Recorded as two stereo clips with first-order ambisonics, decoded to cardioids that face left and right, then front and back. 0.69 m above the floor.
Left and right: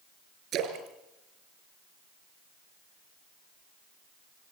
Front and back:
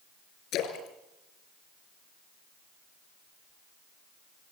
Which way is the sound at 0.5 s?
45° right.